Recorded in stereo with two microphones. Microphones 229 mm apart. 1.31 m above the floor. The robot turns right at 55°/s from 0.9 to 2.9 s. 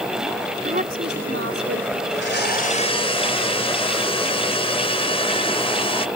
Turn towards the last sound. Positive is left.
turn(degrees=155)